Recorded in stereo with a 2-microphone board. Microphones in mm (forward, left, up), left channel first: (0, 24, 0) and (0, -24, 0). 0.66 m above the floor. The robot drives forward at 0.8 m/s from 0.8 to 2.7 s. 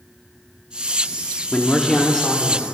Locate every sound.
1.5 s a man speaking: 20° left (ahead or behind), 1.0 m; by 2.6 s 10° left (ahead or behind), 1.8 m